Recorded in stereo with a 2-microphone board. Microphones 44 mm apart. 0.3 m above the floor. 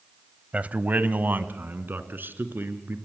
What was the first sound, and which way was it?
A man speaking, 35° right (ahead or behind).